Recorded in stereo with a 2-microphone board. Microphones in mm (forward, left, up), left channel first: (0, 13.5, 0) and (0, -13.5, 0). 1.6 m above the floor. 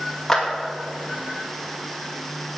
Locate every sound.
0.3 s a clap: 10° left (ahead or behind), 2 m